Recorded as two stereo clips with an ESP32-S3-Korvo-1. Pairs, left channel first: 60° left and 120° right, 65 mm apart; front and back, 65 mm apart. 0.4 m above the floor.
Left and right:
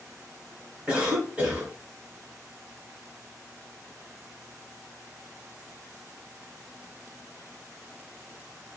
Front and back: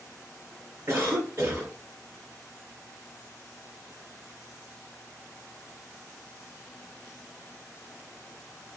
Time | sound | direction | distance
0.9 | a cough | straight behind | 1.0 m